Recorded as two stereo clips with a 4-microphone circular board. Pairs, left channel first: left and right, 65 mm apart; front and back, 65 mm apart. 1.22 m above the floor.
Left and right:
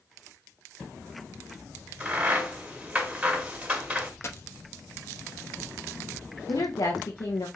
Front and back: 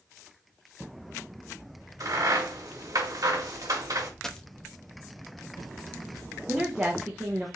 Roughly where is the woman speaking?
Left.